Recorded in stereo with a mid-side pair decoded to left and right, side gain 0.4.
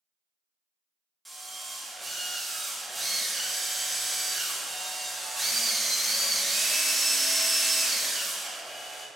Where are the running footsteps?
No running footsteps in this recording.